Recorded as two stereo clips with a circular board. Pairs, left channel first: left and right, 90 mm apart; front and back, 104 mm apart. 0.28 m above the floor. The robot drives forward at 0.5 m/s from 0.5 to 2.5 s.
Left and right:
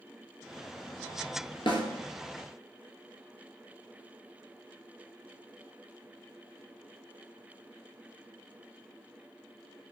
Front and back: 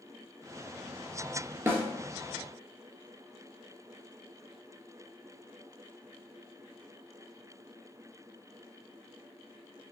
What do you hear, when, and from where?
1.7 s a snare drum: 110° left, 0.9 m; by 1.8 s 115° left, 0.9 m